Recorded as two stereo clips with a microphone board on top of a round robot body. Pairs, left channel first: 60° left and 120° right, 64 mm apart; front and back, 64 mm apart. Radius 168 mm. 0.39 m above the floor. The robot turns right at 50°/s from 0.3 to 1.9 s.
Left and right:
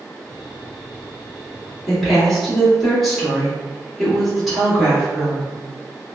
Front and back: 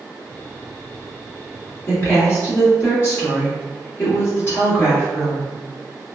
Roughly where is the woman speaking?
Ahead right.